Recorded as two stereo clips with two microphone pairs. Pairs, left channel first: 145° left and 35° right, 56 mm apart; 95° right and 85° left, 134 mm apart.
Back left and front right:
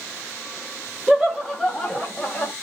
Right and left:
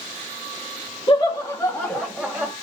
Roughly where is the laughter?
Right.